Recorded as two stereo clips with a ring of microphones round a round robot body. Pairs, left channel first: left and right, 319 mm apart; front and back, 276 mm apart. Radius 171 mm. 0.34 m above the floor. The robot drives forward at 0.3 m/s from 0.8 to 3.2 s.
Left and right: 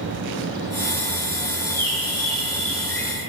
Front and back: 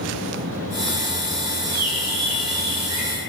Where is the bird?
170° left, 3 m; by 3.1 s 175° left, 3.5 m.